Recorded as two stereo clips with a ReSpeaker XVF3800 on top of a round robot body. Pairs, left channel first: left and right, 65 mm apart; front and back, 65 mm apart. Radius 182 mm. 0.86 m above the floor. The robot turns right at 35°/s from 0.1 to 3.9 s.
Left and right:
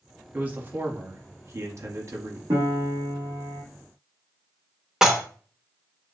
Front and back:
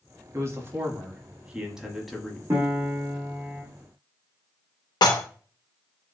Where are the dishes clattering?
5° right, 0.6 m.